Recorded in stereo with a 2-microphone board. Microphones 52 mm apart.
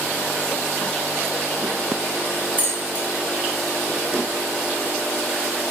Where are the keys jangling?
35° right (ahead or behind), 0.8 m.